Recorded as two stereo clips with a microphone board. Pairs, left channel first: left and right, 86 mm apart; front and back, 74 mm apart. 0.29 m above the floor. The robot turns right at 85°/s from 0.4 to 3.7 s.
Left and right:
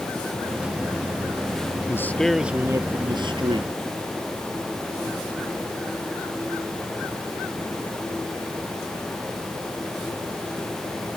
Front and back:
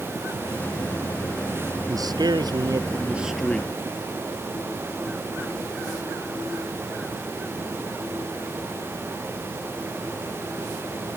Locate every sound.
1.9 s a man speaking: 145° left; by 3.7 s 60° right